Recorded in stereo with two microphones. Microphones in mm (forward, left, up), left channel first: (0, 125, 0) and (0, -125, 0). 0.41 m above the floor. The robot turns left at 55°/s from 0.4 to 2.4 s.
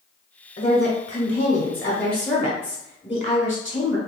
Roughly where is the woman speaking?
Behind left.